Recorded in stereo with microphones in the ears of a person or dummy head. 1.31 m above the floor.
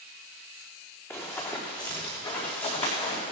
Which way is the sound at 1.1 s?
15° left (ahead or behind).